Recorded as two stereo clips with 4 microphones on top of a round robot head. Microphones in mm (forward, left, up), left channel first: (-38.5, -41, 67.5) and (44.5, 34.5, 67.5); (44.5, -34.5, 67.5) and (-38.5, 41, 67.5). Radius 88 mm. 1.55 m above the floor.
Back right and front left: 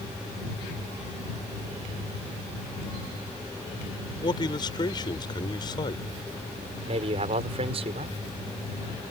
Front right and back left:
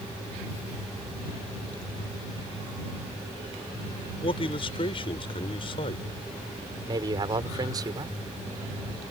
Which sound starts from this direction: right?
A man speaking, at 4.2 s.